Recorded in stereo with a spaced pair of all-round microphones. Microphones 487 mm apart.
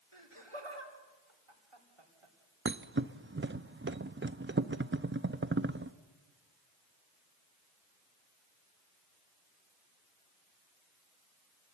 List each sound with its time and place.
0.1 s laughter: 75° right (ahead or behind), 4 m
2.6 s a thud: 25° right (ahead or behind), 0.6 m